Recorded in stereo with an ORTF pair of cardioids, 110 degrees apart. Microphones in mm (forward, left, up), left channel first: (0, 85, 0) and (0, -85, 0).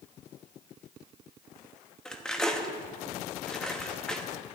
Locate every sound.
2.0 s cutlery clinking: 5° left, 1.1 m